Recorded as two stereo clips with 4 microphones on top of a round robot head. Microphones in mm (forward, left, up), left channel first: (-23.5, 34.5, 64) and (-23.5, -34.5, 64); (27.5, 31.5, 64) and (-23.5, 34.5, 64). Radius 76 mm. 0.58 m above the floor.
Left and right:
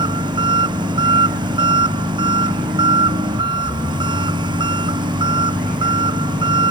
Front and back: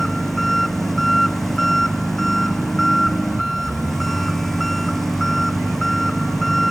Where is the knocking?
No knocking in this recording.